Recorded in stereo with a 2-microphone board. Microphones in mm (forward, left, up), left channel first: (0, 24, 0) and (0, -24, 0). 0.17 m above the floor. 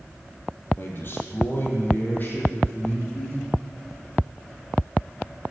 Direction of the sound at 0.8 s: 45° left (ahead or behind).